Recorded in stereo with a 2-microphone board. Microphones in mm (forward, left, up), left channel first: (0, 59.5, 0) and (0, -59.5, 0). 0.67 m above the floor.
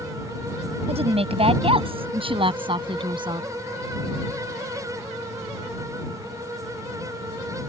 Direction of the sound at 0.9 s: 60° right (ahead or behind).